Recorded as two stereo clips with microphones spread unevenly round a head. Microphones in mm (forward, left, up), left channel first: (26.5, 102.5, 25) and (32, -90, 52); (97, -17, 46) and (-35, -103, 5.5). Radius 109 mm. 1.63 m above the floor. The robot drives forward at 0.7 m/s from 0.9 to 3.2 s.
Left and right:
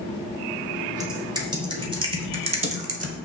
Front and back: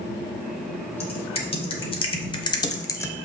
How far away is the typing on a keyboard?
About 2.5 m.